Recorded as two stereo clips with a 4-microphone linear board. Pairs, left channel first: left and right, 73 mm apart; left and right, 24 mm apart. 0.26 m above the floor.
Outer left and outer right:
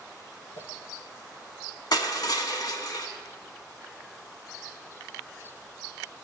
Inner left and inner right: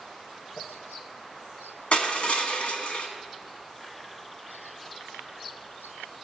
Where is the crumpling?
70° left (ahead or behind), 0.8 m.